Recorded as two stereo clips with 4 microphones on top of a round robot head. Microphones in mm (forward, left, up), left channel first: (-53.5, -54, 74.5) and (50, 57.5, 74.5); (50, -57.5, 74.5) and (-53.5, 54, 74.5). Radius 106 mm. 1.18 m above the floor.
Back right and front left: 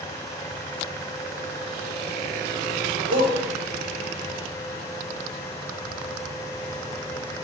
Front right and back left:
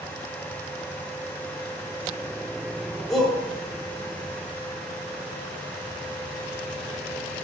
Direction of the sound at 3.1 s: 40° left.